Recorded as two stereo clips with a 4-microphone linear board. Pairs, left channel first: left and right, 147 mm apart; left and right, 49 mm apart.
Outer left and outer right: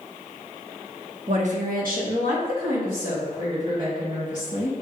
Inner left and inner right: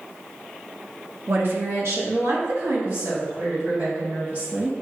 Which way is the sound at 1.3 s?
45° right (ahead or behind).